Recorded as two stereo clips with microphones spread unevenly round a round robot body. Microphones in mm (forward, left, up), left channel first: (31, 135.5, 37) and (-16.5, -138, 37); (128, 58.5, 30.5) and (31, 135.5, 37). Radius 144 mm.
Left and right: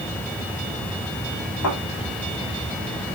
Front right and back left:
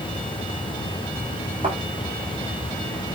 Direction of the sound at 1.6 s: 105° left.